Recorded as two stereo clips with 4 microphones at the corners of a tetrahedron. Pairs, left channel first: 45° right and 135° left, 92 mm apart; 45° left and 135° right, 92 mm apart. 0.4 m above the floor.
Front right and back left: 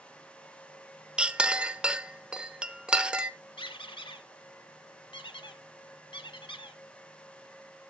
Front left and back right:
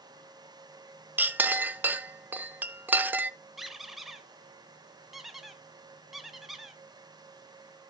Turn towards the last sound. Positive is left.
turn(degrees=-45)